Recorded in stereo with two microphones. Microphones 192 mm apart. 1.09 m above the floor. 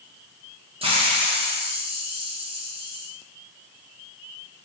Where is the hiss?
30° right (ahead or behind), 0.7 m.